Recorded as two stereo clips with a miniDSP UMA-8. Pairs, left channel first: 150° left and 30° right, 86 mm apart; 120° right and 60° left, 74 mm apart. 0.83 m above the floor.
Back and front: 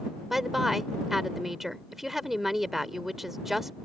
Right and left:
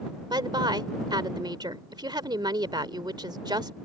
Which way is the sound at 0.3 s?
55° left.